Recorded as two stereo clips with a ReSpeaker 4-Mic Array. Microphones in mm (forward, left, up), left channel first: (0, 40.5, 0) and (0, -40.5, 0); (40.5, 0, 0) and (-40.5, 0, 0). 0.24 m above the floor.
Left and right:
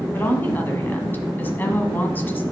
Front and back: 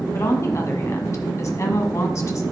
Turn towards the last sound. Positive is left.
turn(degrees=30)